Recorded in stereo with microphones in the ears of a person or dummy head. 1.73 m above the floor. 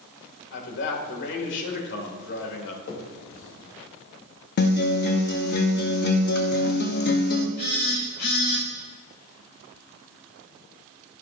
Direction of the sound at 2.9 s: 65° left (ahead or behind).